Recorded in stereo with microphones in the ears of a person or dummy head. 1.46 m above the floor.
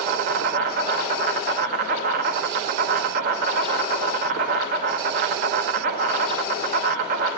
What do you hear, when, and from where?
0.0 s an insect: 45° right (ahead or behind), 0.9 m